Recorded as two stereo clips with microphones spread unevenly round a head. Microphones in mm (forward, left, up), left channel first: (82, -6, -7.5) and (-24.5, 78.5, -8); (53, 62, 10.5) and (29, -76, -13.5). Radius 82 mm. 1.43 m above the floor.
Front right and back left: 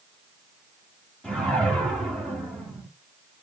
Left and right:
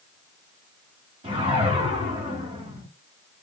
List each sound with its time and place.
1.2 s a whoosh: 120° right, 1.4 m